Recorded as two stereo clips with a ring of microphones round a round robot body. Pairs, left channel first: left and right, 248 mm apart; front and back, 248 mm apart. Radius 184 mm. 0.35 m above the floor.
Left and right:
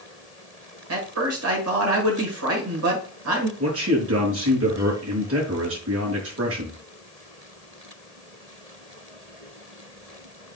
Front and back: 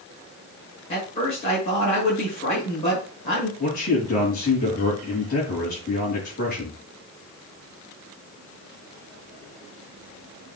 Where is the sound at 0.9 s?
70° right, 6 m.